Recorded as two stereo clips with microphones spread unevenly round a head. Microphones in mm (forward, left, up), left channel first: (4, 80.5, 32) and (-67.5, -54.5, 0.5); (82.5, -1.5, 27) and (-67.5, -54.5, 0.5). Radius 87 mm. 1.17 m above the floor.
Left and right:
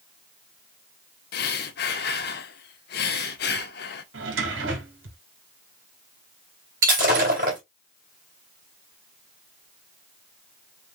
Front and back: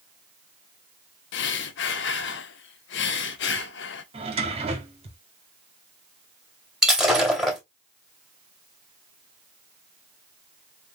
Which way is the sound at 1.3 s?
35° left.